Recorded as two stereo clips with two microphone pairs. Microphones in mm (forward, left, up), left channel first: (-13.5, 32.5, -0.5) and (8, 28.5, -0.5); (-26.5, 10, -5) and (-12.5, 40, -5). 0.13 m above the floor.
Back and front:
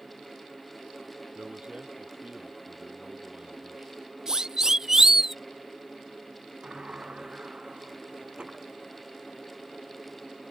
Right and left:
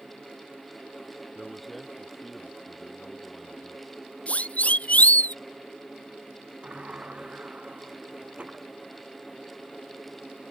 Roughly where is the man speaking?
Ahead.